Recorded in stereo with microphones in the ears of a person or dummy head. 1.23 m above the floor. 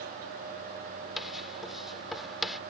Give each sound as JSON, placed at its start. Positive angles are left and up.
{"t": 1.2, "sound": "writing", "side_deg": 0}